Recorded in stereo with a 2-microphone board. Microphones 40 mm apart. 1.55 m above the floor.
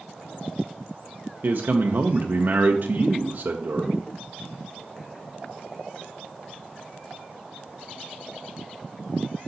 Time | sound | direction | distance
1.4 | a man speaking | 60° right (ahead or behind) | 0.6 m